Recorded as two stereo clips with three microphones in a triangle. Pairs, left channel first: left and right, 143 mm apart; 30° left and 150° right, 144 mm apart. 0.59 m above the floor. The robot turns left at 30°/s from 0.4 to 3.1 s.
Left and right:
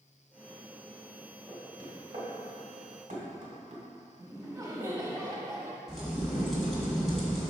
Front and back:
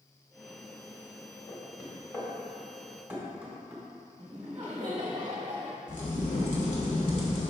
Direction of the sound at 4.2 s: 150° right.